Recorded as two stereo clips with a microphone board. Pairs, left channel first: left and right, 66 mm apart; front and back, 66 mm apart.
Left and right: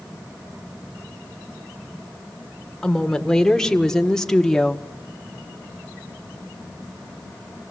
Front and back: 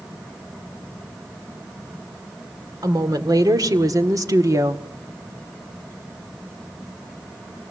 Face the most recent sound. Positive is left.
turn(degrees=170)